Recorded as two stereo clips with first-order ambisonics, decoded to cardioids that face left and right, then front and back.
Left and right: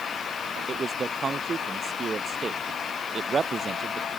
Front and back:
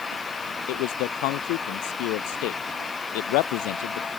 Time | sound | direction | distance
0.7 | a man speaking | 20° right | ?